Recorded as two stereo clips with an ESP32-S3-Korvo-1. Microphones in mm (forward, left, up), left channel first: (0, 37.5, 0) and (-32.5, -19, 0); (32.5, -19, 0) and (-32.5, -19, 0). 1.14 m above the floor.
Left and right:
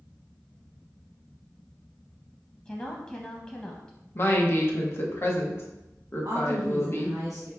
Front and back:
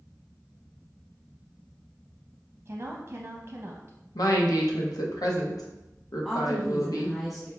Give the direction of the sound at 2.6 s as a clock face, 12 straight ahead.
8 o'clock.